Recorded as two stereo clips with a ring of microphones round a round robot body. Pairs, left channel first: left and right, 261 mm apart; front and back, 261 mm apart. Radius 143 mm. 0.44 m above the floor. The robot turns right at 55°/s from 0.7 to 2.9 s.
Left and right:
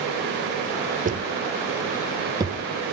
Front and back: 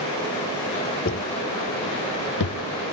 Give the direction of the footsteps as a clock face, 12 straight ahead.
1 o'clock.